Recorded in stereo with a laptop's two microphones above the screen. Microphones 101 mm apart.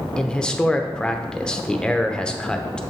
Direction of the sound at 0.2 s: 10° left (ahead or behind).